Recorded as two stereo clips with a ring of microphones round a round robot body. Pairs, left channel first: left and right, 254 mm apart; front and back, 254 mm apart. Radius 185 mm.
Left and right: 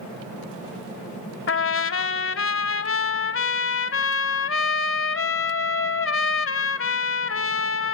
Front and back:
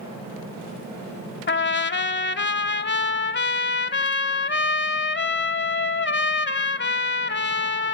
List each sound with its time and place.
1.5 s a trumpet: 50° left, 1.0 m